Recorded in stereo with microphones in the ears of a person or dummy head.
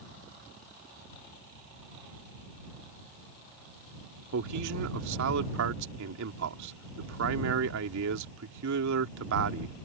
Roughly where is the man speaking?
Right.